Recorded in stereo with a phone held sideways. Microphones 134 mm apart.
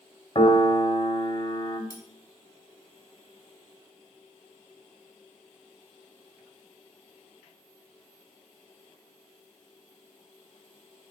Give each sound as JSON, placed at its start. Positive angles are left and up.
{"t": 0.3, "sound": "a piano", "side_deg": 35, "distance_m": 1.4}
{"t": 1.9, "sound": "cutlery clinking", "side_deg": 25, "distance_m": 2.0}